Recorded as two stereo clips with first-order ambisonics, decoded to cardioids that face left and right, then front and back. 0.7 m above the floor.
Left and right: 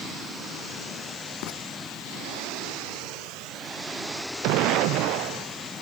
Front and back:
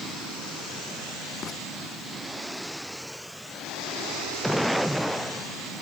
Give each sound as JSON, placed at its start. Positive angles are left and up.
{"t": 1.4, "sound": "writing", "azimuth_deg": 60}